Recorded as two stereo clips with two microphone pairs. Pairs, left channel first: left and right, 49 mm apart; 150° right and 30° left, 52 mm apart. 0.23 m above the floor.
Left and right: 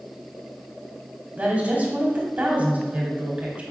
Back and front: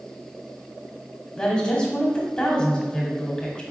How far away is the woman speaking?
About 1.1 m.